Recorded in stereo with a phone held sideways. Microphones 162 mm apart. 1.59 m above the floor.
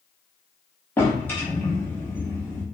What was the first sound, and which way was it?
A drawer, 15° left (ahead or behind).